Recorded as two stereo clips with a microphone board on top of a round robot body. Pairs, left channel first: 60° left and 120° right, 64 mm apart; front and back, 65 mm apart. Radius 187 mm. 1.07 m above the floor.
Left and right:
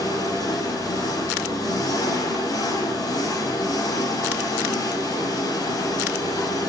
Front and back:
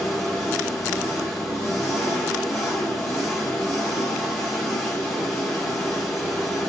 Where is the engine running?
85° left, 5 m.